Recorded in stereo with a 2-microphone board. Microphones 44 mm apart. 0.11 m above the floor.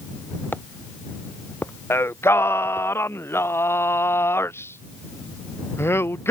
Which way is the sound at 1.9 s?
75° left (ahead or behind).